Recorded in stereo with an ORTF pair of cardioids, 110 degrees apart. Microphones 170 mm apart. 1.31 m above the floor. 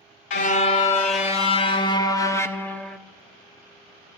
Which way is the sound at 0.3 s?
55° left.